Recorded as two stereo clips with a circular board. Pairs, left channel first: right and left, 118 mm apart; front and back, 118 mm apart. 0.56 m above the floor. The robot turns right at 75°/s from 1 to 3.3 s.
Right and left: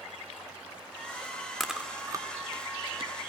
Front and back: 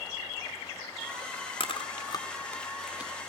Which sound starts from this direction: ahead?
Chewing, at 1.6 s.